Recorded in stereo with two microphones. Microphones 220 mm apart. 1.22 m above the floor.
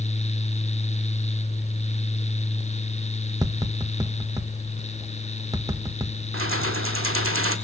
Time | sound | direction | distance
3.4 | tapping | 15° right (ahead or behind) | 1.2 m
6.3 | keys jangling | 65° right (ahead or behind) | 1.9 m